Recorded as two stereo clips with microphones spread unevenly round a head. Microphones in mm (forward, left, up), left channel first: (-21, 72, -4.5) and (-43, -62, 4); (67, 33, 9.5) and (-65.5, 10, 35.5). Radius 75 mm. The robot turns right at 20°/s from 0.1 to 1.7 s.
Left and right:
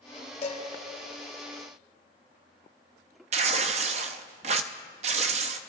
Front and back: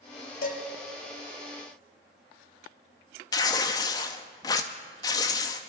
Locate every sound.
0.4 s dishes clattering: 25° left, 3 m; by 0.6 s 30° left, 3 m
3.3 s tearing paper: 60° right, 0.6 m